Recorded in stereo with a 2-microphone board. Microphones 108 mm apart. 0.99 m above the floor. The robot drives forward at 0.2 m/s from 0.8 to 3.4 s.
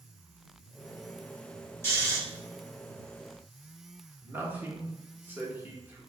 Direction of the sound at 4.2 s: 20° right (ahead or behind).